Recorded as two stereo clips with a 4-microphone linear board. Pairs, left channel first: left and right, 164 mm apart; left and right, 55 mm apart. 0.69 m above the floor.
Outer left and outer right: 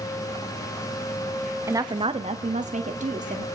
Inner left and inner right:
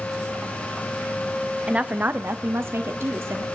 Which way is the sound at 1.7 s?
20° right (ahead or behind).